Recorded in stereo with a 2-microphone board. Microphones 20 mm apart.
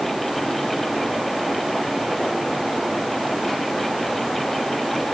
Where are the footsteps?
No footsteps in this recording.